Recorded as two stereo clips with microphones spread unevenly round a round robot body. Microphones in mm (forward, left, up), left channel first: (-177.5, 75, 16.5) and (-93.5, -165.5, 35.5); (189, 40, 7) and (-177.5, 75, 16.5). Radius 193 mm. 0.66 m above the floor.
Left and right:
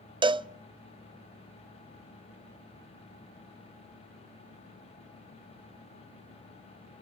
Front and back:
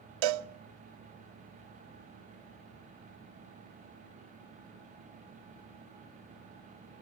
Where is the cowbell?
145° right, 0.5 m.